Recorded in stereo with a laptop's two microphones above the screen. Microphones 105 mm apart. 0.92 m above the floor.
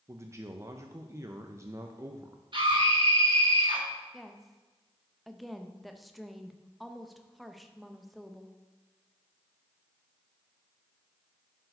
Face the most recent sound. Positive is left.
turn(degrees=0)  # may be behind; listen again after turning